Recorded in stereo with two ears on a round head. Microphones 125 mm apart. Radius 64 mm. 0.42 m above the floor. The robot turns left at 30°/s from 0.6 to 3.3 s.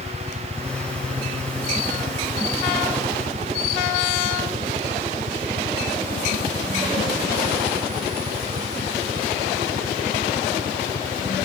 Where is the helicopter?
5° right (ahead or behind); by 11.5 s 65° right (ahead or behind).